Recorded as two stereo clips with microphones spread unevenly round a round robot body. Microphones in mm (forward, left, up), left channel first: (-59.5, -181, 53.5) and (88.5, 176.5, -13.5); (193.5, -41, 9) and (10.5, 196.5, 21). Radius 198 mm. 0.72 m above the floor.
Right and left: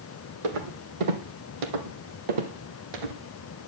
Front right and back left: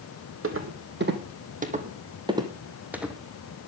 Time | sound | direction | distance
0.4 | footsteps | 85° left | 2 m